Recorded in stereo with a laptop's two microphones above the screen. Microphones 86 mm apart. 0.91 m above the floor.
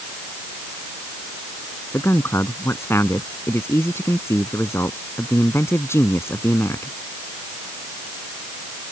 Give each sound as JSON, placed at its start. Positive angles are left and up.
{"t": 1.9, "sound": "a man speaking", "side_deg": 30}